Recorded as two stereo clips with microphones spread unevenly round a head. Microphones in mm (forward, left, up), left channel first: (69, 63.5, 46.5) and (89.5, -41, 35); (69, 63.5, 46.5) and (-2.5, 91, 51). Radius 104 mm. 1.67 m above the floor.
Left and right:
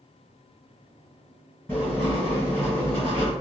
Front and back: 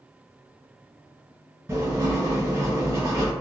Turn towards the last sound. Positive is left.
turn(degrees=155)